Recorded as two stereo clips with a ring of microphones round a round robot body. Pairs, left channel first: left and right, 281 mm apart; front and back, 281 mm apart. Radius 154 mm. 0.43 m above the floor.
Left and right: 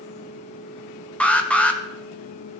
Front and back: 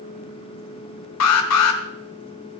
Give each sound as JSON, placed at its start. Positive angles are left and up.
{"t": 1.2, "sound": "an alarm", "azimuth_deg": 5, "distance_m": 1.3}